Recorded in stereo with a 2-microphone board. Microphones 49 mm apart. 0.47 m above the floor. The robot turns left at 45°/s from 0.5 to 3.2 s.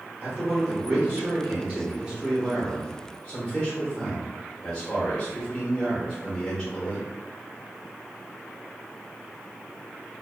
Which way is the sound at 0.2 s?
30° right (ahead or behind).